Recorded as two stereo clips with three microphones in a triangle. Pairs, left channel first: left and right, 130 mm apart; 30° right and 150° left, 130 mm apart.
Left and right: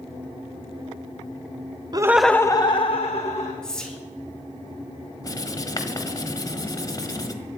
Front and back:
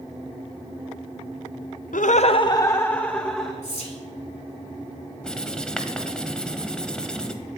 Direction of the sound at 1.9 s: 30° right.